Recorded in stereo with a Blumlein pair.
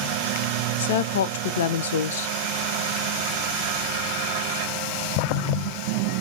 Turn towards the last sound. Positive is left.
turn(degrees=60)